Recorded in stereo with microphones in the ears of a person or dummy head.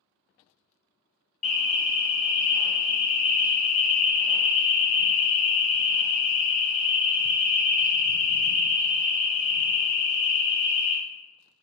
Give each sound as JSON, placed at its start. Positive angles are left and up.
{"t": 1.4, "sound": "an alarm", "side_deg": 5, "distance_m": 1.2}